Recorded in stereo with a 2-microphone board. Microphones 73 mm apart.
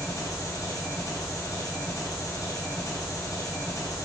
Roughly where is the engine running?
Left.